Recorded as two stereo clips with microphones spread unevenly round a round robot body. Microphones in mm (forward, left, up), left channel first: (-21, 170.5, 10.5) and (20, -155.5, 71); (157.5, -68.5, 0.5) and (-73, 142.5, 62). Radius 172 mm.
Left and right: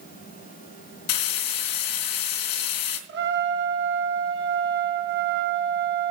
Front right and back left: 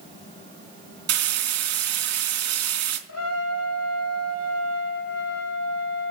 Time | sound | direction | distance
1.1 | frying | 95° left | 3.5 m
3.1 | a trumpet | 20° right | 3 m